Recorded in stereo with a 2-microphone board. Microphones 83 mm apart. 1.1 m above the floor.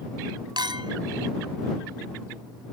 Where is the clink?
70° right (ahead or behind).